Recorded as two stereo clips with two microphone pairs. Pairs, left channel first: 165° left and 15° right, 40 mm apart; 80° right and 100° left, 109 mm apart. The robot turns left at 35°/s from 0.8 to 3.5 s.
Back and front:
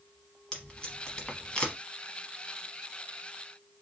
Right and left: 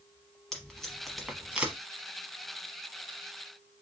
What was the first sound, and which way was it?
Tape being pulled, 165° right.